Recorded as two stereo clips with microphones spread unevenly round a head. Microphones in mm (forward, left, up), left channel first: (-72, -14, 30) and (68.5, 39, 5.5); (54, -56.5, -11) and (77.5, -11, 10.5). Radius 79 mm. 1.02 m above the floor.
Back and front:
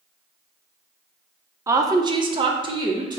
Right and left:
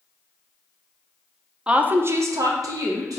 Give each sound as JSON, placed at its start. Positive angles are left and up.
{"t": 1.7, "sound": "a woman speaking", "azimuth_deg": -30, "distance_m": 0.5}